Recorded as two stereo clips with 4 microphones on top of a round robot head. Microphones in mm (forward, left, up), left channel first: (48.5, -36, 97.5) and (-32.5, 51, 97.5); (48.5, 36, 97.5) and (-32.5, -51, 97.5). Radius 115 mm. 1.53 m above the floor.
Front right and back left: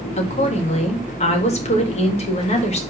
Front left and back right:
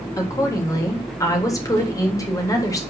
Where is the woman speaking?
15° right, 3.5 m.